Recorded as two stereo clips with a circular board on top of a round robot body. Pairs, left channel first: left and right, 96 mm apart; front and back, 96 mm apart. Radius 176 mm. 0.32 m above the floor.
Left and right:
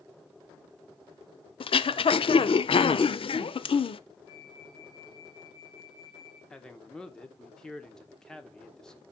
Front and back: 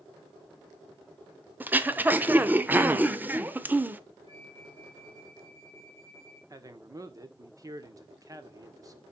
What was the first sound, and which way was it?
Throat clearing, 110° left.